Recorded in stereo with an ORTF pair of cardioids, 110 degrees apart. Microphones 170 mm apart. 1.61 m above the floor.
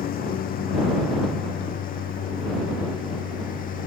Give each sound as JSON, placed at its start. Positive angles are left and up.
{"t": 0.0, "sound": "a lawn mower", "azimuth_deg": 60}